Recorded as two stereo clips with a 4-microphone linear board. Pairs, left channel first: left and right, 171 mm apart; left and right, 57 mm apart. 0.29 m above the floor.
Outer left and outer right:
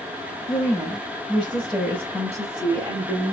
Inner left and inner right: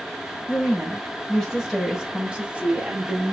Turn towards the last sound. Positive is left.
turn(degrees=-35)  # may be behind; listen again after turning